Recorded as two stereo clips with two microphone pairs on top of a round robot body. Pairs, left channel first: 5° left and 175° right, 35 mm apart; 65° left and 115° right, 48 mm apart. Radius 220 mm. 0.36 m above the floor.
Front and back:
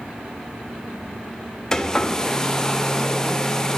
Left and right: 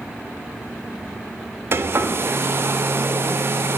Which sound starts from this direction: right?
A hair dryer, at 1.7 s.